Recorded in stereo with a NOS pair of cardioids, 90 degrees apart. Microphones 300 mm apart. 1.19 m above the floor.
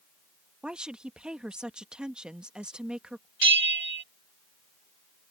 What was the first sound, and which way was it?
A woman speaking, 5° right.